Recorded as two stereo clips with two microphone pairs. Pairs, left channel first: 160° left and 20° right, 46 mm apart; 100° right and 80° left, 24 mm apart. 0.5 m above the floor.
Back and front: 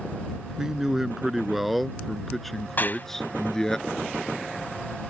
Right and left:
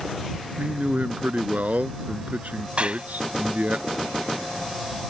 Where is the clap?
120° left.